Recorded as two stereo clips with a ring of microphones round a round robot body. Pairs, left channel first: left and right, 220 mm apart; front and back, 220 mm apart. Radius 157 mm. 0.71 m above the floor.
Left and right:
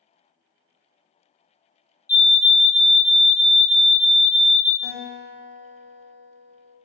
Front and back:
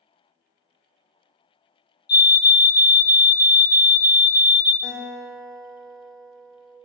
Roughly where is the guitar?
Right.